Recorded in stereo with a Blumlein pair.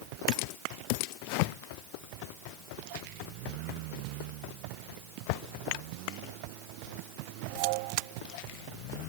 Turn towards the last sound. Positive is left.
No sound to turn to.